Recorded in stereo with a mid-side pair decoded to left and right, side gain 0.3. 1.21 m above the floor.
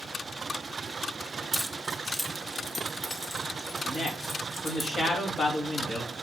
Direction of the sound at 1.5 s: 15° right.